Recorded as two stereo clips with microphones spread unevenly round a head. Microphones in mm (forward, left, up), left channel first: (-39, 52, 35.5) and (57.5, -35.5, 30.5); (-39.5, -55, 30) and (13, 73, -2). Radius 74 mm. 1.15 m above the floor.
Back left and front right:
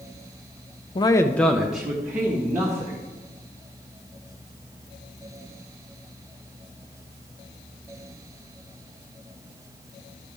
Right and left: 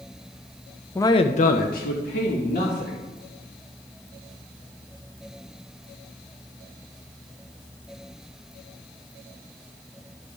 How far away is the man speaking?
About 0.5 m.